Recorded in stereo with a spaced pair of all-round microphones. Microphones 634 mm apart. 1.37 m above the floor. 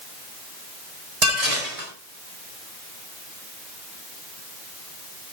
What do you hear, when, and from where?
1.2 s dishes clattering: 65° right (ahead or behind), 4.5 m